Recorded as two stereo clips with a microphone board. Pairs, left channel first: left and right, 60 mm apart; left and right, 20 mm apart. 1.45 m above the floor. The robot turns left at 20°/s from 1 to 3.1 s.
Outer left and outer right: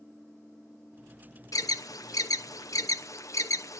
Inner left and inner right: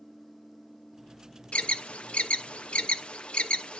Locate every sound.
1.5 s an alarm: 80° left, 0.8 m; by 3.8 s 65° left (ahead or behind), 0.8 m